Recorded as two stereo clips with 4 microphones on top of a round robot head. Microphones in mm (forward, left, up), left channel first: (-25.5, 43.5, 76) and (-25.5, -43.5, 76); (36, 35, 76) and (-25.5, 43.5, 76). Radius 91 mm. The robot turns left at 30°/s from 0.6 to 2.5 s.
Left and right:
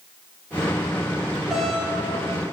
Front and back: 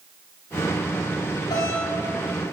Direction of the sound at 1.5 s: Straight ahead.